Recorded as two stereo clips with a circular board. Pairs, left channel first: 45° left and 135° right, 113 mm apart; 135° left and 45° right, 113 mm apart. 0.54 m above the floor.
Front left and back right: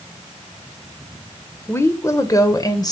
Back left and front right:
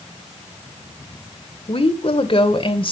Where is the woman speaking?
110° left, 1.9 m; by 2.9 s 95° left, 2.5 m.